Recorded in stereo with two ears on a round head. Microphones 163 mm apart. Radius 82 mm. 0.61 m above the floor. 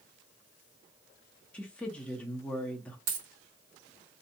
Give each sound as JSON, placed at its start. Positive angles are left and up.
{"t": 1.5, "sound": "a woman speaking", "side_deg": 5, "distance_m": 0.6}
{"t": 3.1, "sound": "a dropped coin", "side_deg": -80, "distance_m": 1.3}